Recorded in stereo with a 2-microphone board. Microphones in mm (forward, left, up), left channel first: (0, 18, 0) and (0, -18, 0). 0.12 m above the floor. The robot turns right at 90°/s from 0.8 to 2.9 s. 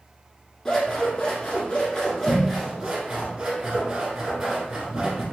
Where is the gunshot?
I don't hear a gunshot.